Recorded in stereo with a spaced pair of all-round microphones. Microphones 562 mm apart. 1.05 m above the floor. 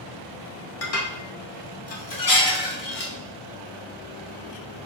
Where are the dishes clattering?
80° left, 0.9 m.